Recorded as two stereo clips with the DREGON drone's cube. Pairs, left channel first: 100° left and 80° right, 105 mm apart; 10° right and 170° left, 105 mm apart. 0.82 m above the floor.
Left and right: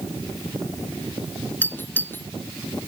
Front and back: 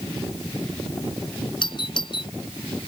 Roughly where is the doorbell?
Ahead left.